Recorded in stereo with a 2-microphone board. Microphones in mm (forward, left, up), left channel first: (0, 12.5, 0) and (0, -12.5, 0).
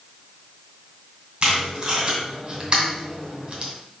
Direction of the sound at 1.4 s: 45° right (ahead or behind).